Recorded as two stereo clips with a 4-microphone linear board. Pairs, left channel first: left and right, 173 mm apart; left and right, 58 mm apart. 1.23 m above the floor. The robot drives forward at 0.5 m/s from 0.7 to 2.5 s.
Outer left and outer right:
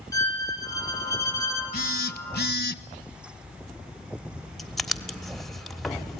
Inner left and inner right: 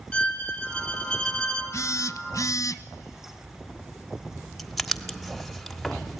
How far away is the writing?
About 1.3 m.